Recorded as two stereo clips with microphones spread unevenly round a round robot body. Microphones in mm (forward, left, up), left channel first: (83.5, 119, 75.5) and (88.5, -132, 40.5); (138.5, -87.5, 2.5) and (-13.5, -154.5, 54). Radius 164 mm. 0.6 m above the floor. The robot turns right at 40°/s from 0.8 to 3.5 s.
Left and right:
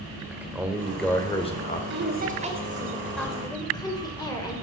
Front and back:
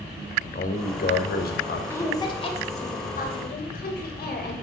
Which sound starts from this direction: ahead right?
A woman speaking, at 1.9 s.